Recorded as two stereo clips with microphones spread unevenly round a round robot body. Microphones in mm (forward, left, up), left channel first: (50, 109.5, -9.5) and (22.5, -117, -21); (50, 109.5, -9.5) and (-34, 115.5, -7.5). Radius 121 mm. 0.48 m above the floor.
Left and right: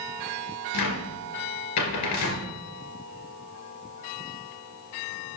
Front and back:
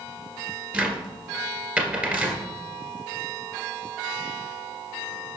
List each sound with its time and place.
0.7 s a cupboard door: 105° left, 2.5 m